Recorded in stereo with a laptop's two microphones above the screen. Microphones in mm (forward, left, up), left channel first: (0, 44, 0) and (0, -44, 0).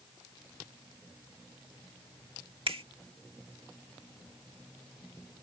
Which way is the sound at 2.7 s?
80° right.